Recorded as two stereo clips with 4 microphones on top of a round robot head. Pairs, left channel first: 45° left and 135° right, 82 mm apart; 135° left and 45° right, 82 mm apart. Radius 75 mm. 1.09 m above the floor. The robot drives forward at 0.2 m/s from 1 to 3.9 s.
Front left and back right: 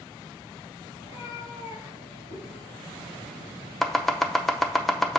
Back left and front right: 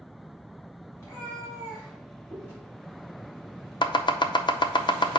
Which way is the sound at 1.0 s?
75° left.